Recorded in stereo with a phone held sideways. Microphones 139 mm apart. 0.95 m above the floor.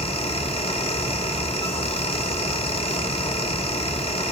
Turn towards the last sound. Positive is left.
turn(degrees=45)  # may be behind; listen again after turning